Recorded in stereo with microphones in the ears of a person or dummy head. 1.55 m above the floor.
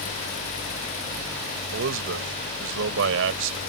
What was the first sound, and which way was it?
A man speaking, 80° right.